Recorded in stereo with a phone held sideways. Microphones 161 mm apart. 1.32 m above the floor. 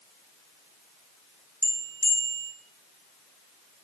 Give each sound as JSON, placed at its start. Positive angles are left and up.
{"t": 1.6, "sound": "a bell", "side_deg": 20, "distance_m": 0.9}